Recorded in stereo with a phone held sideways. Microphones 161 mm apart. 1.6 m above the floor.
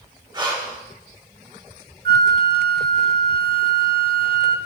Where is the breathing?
25° right (ahead or behind), 1.6 m.